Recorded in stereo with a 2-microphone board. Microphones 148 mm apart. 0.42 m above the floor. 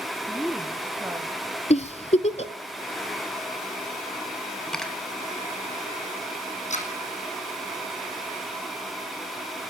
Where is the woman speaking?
15° left (ahead or behind), 1.0 m; by 1.6 s 25° right (ahead or behind), 2.5 m.